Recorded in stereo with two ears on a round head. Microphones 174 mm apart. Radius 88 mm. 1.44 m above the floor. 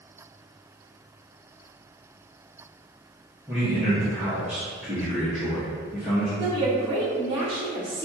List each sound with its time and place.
3.5 s a man speaking: 10° right (ahead or behind), 1.3 m
6.4 s a woman speaking: 25° right (ahead or behind), 1.5 m